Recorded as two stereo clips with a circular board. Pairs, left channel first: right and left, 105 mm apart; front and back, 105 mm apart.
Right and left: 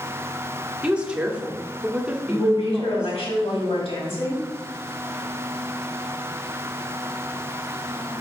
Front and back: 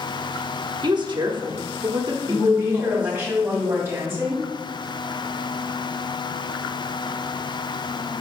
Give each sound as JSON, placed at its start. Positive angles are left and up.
{"t": 0.8, "sound": "a woman speaking", "azimuth_deg": 165, "distance_m": 1.0}
{"t": 2.3, "sound": "a woman speaking", "azimuth_deg": -115, "distance_m": 3.0}